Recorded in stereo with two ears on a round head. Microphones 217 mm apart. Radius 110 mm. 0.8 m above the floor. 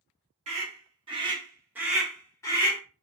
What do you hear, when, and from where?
0.5 s a scream: 25° right (ahead or behind), 1.3 m; by 2.8 s 20° left (ahead or behind), 0.7 m